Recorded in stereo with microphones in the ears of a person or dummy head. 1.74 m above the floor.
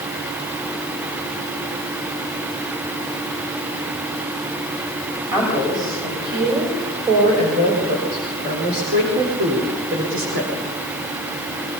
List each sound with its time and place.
5.3 s a woman speaking: 25° right (ahead or behind), 6.5 m; by 10.5 s 80° right, 4.5 m